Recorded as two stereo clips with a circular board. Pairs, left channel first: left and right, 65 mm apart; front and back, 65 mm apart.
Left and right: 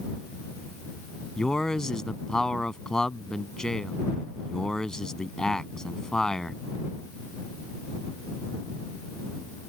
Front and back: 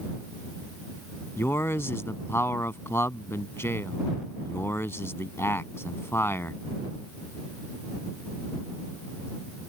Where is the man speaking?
15° left.